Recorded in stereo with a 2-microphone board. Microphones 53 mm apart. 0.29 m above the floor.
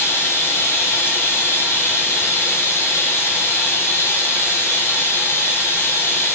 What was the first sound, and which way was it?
Running water, 50° left (ahead or behind).